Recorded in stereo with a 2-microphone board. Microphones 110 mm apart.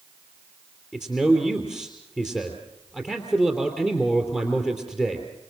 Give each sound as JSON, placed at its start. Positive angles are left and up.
{"t": 0.9, "sound": "a man speaking", "side_deg": 15, "distance_m": 3.0}